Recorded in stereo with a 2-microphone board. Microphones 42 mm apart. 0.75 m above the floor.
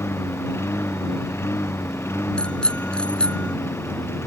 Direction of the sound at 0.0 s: 80° left.